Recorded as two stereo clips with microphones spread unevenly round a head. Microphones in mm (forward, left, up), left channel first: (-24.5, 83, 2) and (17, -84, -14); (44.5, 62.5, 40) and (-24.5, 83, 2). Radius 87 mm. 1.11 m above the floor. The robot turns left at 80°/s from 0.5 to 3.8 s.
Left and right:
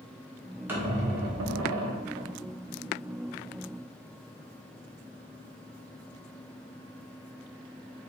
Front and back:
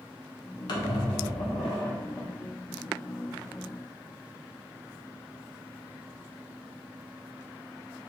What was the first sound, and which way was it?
A squeak, 5° left.